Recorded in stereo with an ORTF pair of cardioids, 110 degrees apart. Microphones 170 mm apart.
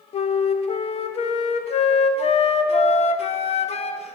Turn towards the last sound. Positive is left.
turn(degrees=40)